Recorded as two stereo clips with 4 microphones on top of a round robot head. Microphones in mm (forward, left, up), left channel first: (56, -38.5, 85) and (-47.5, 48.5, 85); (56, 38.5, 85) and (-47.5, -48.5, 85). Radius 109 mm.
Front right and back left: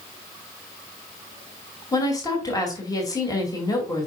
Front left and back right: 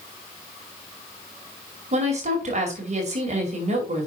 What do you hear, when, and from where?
1.9 s a woman speaking: 105° right, 2.5 m